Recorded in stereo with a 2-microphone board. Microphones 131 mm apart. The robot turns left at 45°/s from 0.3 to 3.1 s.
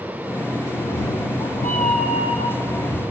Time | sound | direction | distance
0.8 | a cat meowing | 125° left | 0.6 m